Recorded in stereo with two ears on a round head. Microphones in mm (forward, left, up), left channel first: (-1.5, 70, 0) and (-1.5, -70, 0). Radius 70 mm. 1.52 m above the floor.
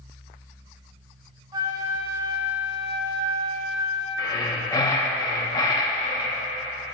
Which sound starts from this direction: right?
A flute, at 1.5 s.